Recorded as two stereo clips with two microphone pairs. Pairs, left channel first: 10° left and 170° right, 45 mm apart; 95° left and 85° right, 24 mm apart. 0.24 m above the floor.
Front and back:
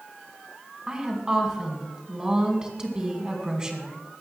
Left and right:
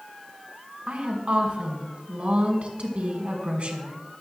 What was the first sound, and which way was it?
A woman speaking, 100° right.